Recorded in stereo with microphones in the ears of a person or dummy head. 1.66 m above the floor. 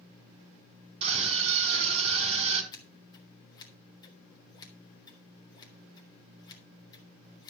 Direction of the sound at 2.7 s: 25° left (ahead or behind).